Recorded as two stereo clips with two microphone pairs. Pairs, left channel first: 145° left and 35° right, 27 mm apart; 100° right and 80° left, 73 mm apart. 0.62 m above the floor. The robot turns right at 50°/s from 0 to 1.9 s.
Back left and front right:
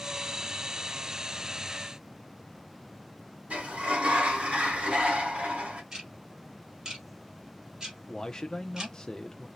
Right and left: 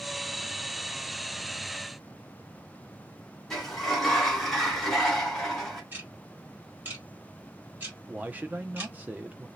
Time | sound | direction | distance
3.5 | a sliding door | 15° right | 1.8 m
5.9 | ticking | 20° left | 2.0 m
8.1 | a man speaking | 110° left | 0.6 m